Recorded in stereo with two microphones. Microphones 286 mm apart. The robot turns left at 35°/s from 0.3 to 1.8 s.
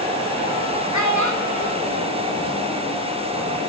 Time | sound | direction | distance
0.9 | a child speaking | 80° left | 0.8 m